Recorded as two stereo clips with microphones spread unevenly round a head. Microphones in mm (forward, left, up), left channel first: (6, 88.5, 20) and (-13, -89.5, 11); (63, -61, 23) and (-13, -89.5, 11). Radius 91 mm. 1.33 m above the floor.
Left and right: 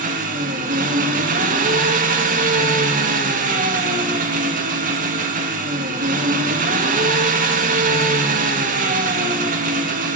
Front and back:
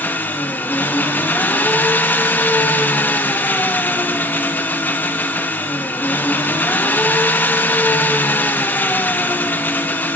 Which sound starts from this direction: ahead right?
An engine running, at 0.0 s.